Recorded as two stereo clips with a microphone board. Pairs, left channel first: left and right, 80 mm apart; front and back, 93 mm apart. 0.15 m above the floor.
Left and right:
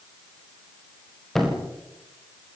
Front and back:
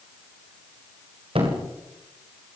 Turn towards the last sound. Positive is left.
turn(degrees=175)